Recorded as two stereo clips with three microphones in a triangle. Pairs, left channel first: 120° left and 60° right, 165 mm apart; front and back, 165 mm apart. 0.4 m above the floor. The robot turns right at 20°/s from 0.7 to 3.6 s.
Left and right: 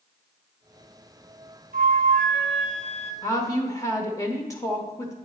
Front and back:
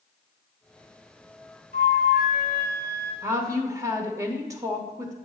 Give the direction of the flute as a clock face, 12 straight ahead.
1 o'clock.